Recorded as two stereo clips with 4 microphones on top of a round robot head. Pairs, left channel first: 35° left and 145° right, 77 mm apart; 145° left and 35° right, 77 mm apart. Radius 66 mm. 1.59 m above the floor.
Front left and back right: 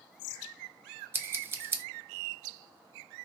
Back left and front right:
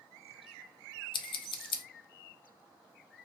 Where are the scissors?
155° left, 0.6 m.